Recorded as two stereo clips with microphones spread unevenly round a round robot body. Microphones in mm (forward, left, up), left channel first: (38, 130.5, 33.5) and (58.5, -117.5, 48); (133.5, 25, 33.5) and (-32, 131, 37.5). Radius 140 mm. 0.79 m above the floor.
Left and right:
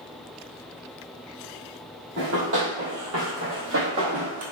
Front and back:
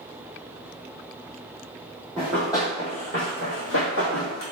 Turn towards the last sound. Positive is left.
turn(degrees=-50)